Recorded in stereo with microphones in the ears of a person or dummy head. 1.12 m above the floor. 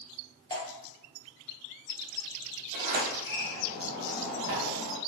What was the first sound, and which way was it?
Dripping, 20° left (ahead or behind).